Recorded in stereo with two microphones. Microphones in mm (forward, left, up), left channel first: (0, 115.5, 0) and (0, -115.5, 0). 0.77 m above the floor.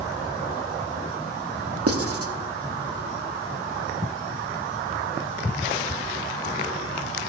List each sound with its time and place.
1.9 s writing: 75° right (ahead or behind), 0.9 m